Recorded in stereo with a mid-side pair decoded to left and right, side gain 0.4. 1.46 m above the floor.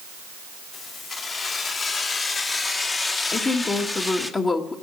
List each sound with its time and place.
0.7 s keys jangling: 60° left, 3.5 m; by 4.3 s 25° left, 1.3 m
3.3 s a woman speaking: 40° left, 1.8 m